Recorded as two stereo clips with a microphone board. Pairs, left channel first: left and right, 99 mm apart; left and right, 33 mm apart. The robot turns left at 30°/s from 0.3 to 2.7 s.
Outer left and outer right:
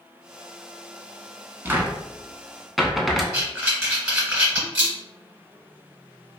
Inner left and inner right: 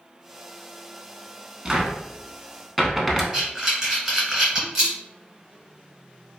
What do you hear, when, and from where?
1.6 s a cupboard door: 25° right (ahead or behind), 0.5 m; by 3.2 s centre (ahead or behind), 0.5 m
3.3 s breathing: 10° right (ahead or behind), 1.9 m